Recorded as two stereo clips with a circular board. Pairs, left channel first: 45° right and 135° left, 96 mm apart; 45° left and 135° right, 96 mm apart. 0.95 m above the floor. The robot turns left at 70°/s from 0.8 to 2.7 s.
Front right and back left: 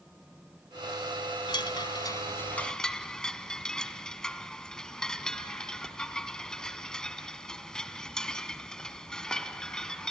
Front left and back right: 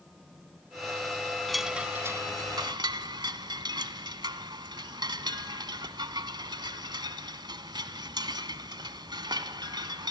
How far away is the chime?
About 1.2 m.